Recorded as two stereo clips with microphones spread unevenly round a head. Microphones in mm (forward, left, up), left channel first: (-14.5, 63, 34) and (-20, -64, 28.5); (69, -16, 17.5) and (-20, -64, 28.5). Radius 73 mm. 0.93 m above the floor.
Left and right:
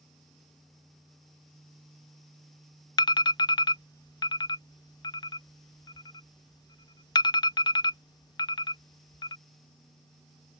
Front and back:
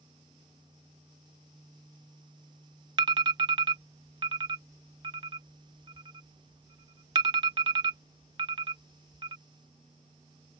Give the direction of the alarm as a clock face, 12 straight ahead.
7 o'clock.